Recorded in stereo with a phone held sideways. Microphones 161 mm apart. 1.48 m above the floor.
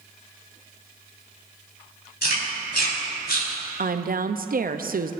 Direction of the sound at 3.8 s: 65° right (ahead or behind).